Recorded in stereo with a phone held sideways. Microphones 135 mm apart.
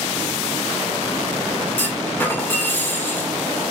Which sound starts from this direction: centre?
A clunk, at 1.8 s.